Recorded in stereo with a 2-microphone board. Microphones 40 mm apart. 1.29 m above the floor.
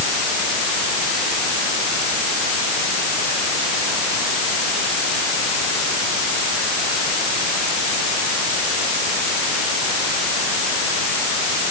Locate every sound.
Only background noise.